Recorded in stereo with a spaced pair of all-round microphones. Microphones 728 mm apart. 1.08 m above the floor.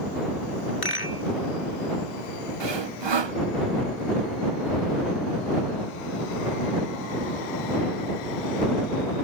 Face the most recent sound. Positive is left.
turn(degrees=-40)  # may be behind; listen again after turning